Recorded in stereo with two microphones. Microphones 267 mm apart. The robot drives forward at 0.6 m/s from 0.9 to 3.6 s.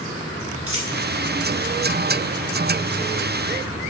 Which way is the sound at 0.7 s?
60° right (ahead or behind).